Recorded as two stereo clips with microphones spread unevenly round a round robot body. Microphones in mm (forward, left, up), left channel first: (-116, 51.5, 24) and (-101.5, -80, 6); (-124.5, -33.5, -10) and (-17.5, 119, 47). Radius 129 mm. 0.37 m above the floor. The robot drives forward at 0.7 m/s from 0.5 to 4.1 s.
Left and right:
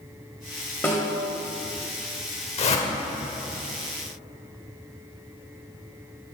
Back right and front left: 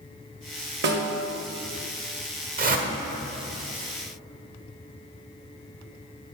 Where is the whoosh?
90° left, 1.7 m; by 2.9 s 100° left, 1.7 m.